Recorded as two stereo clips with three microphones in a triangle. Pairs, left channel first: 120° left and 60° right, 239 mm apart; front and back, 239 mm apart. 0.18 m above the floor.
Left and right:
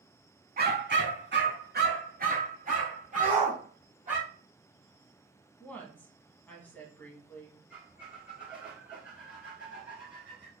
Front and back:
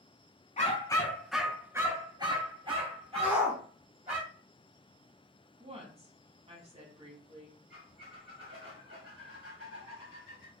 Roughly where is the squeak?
Behind right.